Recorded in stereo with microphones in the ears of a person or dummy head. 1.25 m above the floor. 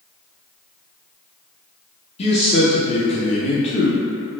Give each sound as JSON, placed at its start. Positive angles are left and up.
{"t": 2.2, "sound": "a man speaking", "side_deg": 35, "distance_m": 0.7}